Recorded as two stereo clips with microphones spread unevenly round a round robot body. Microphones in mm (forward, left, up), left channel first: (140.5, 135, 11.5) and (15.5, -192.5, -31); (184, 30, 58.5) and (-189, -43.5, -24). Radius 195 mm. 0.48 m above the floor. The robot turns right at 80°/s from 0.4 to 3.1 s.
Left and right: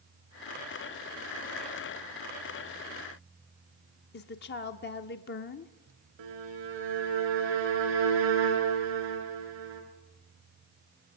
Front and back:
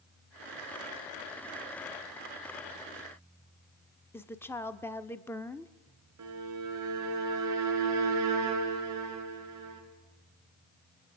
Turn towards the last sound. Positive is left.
turn(degrees=-125)